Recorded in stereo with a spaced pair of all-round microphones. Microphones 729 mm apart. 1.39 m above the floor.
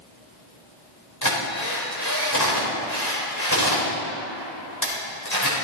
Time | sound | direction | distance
1.2 | a drill | 25° left (ahead or behind) | 4 m